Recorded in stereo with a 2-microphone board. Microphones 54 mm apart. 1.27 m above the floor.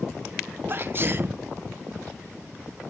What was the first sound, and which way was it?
A sneeze, 40° right (ahead or behind).